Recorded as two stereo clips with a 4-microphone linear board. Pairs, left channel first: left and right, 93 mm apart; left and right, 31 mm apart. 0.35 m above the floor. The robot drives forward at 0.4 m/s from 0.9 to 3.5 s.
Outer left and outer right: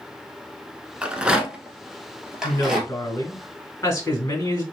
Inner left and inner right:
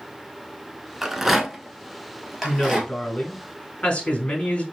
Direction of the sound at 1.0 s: 15° right (ahead or behind).